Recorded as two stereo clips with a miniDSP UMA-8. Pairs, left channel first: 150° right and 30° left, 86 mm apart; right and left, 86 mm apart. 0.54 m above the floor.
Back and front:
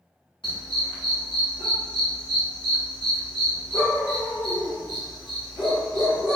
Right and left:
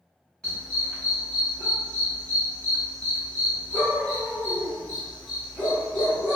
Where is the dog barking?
170° right, 1.4 m.